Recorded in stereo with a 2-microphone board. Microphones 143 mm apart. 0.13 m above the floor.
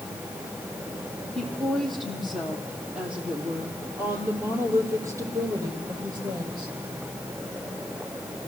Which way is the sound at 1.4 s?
5° left (ahead or behind).